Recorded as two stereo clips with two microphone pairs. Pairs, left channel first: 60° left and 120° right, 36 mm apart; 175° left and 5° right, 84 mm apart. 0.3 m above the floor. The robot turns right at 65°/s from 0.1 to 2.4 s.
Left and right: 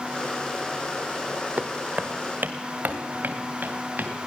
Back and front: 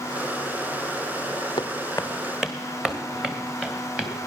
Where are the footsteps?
155° right, 0.7 m; by 4.1 s 80° right, 2.5 m.